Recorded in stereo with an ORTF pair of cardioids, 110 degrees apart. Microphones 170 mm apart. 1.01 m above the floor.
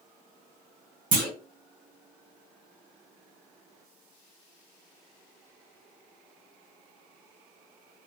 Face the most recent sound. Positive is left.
turn(degrees=-55)